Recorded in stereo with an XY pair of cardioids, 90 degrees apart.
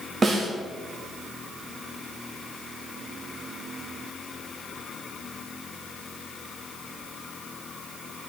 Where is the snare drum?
35° right, 3.5 m.